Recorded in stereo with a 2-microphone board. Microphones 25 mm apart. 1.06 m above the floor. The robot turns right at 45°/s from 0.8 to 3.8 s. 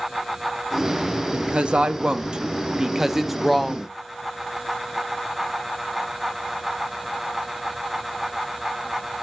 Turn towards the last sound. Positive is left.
turn(degrees=10)